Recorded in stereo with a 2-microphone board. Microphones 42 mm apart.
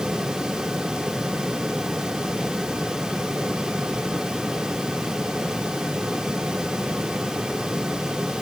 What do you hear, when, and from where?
Only background noise.